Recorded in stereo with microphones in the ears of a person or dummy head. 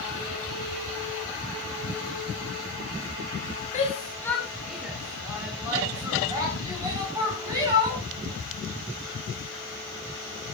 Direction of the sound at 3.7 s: 35° left (ahead or behind).